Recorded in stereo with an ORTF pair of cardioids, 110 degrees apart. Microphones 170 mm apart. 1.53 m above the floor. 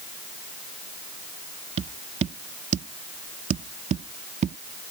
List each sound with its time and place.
1.8 s tapping: 40° right